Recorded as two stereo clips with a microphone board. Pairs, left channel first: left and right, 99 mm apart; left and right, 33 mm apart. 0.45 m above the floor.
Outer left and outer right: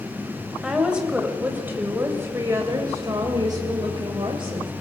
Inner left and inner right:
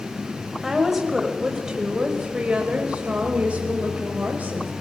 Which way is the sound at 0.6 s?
5° right (ahead or behind).